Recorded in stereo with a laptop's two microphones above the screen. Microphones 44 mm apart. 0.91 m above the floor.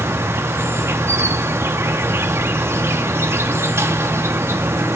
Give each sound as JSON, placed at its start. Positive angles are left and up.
{"t": 0.0, "sound": "an insect", "side_deg": -75, "distance_m": 0.8}